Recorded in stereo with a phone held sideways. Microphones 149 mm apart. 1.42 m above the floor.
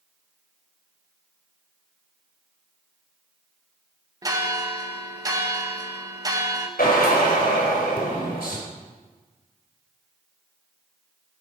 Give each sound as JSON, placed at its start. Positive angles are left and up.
{"t": 4.2, "sound": "a bell", "side_deg": -25, "distance_m": 1.4}
{"t": 6.8, "sound": "a drill", "side_deg": 80, "distance_m": 3.5}